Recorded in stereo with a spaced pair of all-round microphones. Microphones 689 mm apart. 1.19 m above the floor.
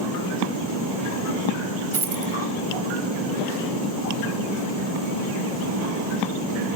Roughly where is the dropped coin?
Right.